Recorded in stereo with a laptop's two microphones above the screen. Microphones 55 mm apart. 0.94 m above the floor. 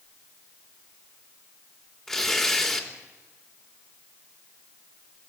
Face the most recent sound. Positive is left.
turn(degrees=10)  # may be behind; listen again after turning